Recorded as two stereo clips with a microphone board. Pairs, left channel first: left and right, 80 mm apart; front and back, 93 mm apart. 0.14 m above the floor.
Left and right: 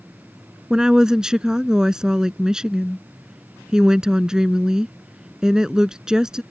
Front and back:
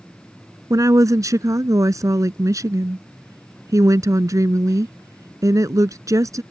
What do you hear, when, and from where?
0.7 s a woman speaking: 165° right